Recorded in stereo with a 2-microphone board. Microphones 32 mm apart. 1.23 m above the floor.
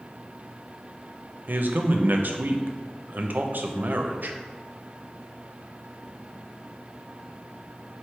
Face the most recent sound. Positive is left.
turn(degrees=-70)  # may be behind; listen again after turning